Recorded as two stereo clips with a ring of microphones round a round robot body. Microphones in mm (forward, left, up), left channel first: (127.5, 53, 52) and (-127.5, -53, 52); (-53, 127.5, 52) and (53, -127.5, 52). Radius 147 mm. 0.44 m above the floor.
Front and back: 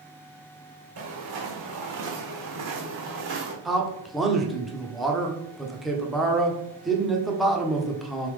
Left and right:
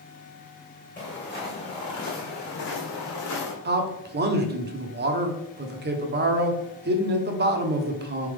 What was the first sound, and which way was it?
Footsteps, 170° right.